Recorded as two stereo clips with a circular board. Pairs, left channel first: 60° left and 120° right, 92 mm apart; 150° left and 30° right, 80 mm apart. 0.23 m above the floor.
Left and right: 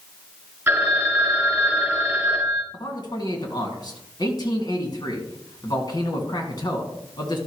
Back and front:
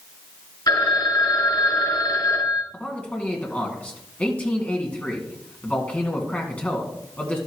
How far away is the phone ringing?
About 2.5 m.